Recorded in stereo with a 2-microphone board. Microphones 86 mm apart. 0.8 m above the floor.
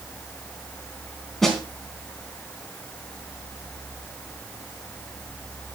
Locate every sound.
1.4 s a snare drum: centre (ahead or behind), 3.5 m